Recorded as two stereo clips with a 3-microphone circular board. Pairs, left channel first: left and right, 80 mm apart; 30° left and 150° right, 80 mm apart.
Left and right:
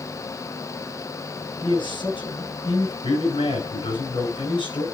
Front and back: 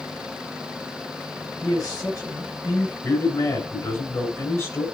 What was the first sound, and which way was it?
A man speaking, 75° left.